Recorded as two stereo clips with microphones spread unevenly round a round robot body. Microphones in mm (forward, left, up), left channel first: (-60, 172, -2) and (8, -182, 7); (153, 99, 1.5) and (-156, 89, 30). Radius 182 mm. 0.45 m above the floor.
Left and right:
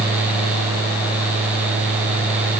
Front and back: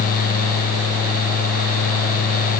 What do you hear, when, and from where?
Only background noise.